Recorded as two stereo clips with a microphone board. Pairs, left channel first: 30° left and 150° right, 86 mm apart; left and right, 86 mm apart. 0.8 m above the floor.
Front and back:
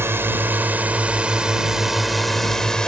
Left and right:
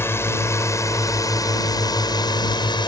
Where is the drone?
150° left; by 2.9 s 110° left.